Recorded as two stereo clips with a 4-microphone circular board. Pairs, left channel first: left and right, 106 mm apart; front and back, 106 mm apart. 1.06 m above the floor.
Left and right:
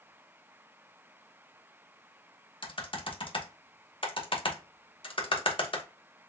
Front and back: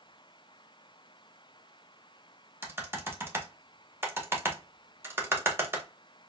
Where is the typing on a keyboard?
115° left, 1.0 m.